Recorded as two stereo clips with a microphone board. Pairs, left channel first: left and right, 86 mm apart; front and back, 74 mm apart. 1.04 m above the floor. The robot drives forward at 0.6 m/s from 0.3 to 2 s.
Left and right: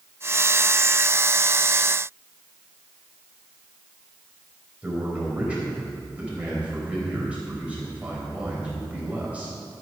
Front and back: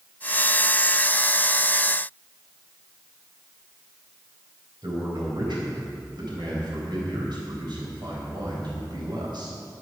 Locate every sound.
4.8 s a man speaking: 165° right, 4 m